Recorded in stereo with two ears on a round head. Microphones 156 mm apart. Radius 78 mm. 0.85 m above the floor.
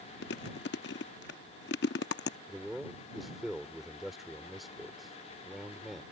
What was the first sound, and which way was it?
Chewing, 70° left (ahead or behind).